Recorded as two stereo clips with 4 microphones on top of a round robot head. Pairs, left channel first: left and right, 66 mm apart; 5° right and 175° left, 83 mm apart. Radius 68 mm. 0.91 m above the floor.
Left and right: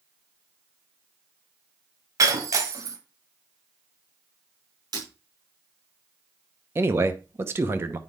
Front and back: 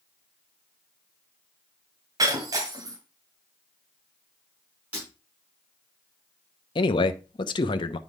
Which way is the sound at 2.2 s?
125° right.